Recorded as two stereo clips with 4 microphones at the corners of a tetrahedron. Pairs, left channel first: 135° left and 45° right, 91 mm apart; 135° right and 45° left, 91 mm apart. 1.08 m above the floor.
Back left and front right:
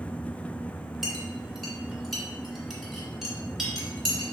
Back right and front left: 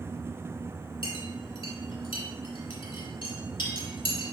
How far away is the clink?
About 2.5 m.